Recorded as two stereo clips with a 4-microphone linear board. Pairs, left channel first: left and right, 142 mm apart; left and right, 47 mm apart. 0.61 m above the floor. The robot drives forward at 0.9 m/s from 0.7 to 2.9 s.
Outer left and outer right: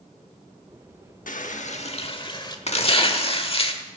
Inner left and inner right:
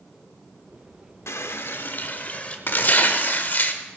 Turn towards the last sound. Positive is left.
turn(degrees=45)  # may be behind; listen again after turning